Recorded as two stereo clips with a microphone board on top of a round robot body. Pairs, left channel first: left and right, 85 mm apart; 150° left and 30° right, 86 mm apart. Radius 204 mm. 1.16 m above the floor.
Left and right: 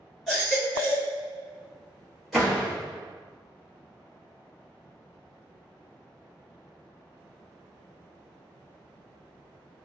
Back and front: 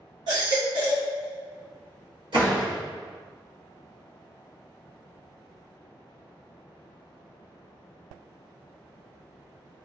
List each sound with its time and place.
0.3 s a baby crying: straight ahead, 1.9 m
2.3 s a door slam: 5° right, 1.6 m